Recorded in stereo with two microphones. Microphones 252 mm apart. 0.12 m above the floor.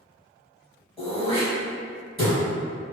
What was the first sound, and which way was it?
Throat clearing, 25° left (ahead or behind).